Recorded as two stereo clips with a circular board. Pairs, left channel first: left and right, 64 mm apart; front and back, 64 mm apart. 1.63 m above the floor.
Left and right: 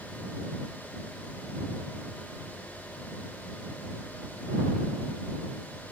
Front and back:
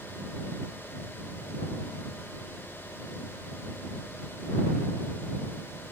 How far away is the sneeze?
I don't hear a sneeze.